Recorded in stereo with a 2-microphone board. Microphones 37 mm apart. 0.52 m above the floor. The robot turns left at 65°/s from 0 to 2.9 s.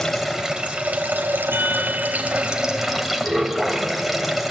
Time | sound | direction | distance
0.0 | running water | 10° left | 3 m
1.5 | a chime | 90° right | 6 m